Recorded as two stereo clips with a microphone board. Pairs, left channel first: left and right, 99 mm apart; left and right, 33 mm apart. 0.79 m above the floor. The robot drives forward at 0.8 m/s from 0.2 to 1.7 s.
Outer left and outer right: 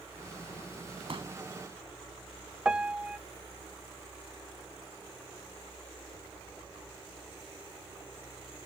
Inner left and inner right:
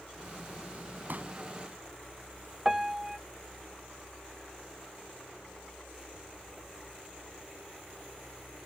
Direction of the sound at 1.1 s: 65° right (ahead or behind).